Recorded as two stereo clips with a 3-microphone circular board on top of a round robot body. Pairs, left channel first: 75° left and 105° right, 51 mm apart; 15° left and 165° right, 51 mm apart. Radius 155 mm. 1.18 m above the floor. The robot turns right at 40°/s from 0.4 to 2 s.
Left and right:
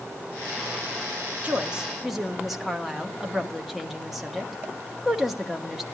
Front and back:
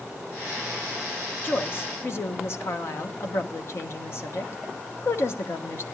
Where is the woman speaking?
40° right, 1.3 m; by 5.8 s 20° right, 1.3 m.